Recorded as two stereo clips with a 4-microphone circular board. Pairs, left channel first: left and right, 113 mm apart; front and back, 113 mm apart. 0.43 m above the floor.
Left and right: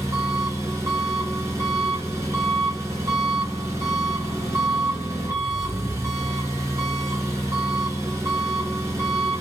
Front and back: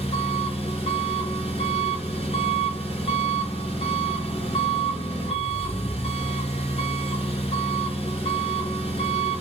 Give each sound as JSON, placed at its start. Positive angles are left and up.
{"t": 0.0, "sound": "an engine running", "azimuth_deg": -30, "distance_m": 1.8}